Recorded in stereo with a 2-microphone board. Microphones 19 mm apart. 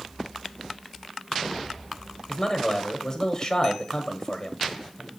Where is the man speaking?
30° left (ahead or behind), 1.1 m.